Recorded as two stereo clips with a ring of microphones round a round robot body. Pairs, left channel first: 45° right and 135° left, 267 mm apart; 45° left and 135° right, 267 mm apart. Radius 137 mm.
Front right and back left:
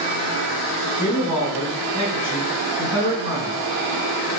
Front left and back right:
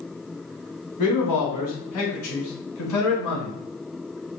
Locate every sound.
1.0 s a man speaking: 60° left, 2.0 m; by 3.6 s 70° left, 3 m